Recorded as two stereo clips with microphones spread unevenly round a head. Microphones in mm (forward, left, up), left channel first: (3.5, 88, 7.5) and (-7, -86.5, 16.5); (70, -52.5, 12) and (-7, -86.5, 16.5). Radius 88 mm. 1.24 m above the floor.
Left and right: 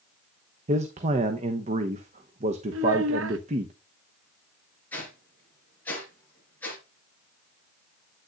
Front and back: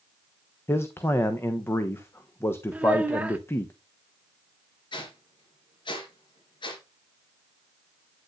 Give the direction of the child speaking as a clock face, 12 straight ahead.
3 o'clock.